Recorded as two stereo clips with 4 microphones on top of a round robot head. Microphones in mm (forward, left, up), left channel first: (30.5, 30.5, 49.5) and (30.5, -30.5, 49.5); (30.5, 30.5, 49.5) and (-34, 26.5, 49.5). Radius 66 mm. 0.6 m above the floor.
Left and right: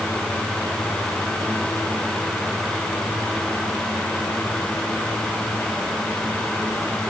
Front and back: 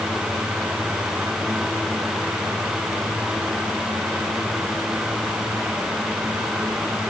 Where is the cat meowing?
No cat meowing in this recording.